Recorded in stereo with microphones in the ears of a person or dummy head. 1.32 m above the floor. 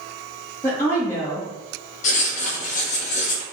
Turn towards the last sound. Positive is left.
turn(degrees=45)  # may be behind; listen again after turning